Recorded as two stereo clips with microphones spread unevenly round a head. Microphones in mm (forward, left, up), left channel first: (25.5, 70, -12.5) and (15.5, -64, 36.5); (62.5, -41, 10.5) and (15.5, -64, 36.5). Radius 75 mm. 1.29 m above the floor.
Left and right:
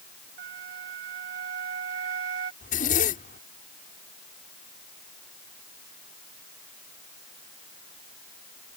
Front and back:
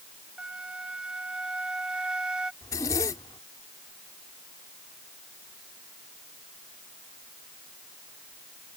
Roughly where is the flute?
Right.